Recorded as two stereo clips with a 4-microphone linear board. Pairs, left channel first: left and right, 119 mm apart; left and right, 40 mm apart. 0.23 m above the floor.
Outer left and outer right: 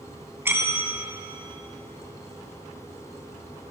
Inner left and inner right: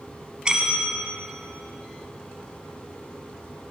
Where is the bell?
20° right (ahead or behind), 2 m.